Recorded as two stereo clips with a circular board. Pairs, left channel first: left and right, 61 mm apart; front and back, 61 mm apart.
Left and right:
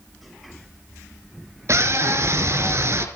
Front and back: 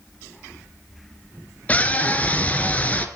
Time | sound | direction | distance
1.7 | a scream | 65° right | 3.5 m